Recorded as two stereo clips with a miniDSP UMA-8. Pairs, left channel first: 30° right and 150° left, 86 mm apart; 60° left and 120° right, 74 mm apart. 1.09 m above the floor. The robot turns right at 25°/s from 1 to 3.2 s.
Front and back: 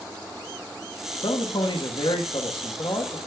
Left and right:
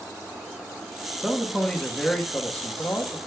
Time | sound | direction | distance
1.2 | a man speaking | 45° right | 1.1 m